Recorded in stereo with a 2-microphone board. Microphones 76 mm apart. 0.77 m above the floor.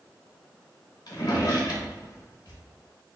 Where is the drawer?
60° left (ahead or behind), 0.8 m.